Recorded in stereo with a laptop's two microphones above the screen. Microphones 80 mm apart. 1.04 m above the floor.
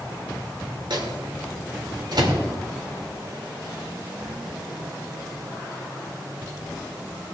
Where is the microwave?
60° right (ahead or behind), 2 m.